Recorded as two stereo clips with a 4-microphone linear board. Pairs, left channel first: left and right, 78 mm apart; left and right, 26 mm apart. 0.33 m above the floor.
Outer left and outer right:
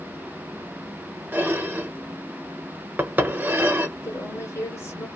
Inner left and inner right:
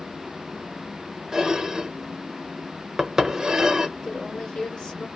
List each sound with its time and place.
1.3 s dishes clattering: 25° right (ahead or behind), 0.6 m
4.0 s a woman speaking: 35° left (ahead or behind), 1.5 m